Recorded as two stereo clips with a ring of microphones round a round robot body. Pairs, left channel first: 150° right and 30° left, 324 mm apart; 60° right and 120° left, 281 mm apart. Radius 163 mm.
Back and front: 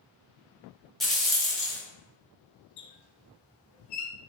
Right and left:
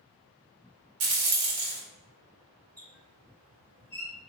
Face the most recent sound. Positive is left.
turn(degrees=-170)